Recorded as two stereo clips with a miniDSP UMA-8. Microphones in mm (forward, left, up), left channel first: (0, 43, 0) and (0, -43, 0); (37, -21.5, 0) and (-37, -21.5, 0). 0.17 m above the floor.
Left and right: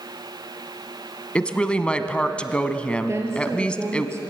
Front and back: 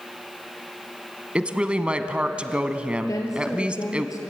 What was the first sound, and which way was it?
A woman speaking, 140° left.